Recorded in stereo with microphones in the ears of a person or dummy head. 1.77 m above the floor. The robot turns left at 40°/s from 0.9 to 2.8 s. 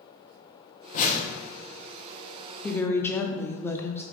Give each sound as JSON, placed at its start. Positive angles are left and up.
{"t": 0.9, "sound": "a whoosh", "side_deg": 45, "distance_m": 0.7}
{"t": 2.6, "sound": "a woman speaking", "side_deg": 10, "distance_m": 0.5}